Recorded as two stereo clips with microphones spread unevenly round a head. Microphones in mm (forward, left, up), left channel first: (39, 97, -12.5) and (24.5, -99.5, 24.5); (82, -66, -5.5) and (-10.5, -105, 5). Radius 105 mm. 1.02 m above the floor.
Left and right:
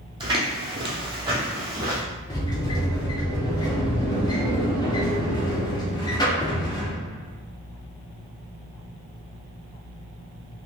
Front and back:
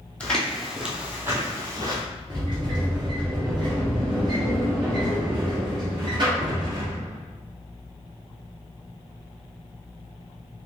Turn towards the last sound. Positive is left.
turn(degrees=160)